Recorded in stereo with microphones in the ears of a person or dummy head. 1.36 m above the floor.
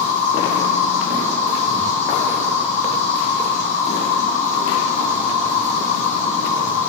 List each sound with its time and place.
0.0 s an insect: 40° left (ahead or behind), 1.9 m